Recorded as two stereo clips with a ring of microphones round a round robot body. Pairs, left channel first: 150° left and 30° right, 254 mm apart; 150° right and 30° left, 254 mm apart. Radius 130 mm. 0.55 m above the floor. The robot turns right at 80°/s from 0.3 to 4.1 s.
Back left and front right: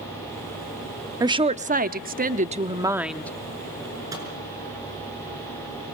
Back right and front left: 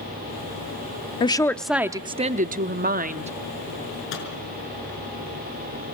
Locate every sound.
1.2 s a woman speaking: 95° right, 0.8 m; by 3.3 s 70° left, 0.8 m
4.1 s a microwave: 105° right, 6 m